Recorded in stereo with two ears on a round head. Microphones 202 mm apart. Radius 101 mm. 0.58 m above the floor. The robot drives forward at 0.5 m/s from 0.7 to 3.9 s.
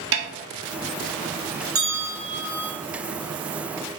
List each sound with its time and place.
0.1 s a snare drum: 55° right (ahead or behind), 0.8 m
1.8 s a bell: 15° right (ahead or behind), 1.9 m